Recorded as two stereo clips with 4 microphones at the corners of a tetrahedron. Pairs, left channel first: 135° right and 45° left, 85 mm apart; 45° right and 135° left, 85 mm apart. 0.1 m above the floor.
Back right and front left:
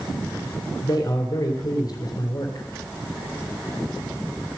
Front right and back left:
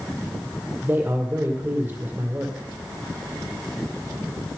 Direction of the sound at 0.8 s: 160° right.